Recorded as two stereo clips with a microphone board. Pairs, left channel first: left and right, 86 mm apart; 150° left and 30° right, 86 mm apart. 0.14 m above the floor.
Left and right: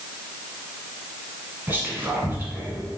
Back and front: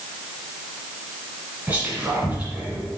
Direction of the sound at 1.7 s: 70° right.